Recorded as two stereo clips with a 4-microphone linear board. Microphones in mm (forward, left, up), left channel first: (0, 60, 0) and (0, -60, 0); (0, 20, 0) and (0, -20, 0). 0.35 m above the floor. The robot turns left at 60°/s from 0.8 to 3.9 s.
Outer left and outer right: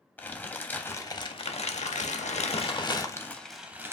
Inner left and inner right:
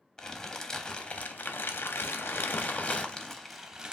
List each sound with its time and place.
0.2 s crumpling: 165° left, 0.6 m; by 3.9 s 20° right, 0.6 m